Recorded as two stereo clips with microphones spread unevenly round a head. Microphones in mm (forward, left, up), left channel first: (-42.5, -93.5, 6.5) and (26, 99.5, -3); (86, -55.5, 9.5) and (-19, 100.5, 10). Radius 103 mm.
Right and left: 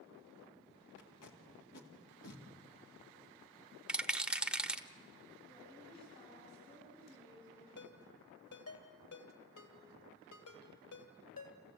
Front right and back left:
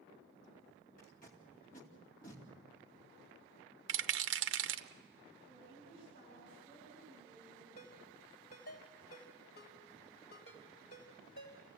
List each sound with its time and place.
1.0 s tape being pulled: 110° right, 2.5 m
3.9 s a rattle: 155° left, 0.7 m
5.5 s a woman speaking: 175° right, 9.5 m
7.8 s a ringtone: 105° right, 3 m